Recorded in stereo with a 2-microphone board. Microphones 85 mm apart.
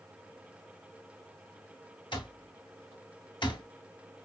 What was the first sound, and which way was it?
An alarm clock, 70° left (ahead or behind).